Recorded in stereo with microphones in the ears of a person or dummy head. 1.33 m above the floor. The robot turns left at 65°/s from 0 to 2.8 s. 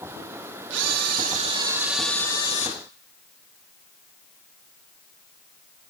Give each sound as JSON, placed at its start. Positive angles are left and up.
{"t": 0.7, "sound": "a camera shutter", "azimuth_deg": -95, "distance_m": 1.9}